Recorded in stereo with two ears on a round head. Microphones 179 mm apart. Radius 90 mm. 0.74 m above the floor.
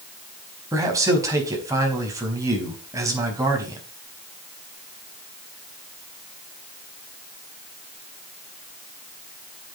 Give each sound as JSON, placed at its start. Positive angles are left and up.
{"t": 0.7, "sound": "a man speaking", "side_deg": -15, "distance_m": 4.5}